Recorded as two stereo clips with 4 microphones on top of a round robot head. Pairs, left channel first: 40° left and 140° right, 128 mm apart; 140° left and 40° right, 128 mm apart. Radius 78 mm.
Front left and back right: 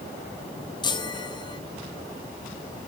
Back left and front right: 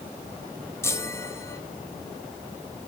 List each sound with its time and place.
0.8 s a chime: 80° left, 1.4 m